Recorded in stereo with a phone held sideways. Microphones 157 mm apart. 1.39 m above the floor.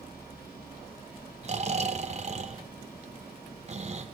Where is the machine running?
75° left (ahead or behind), 4.5 m.